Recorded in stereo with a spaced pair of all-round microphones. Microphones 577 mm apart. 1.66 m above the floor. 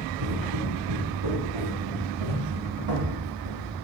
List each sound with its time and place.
0.2 s footsteps: 55° right (ahead or behind), 8 m; by 3.6 s 65° right (ahead or behind), 6.5 m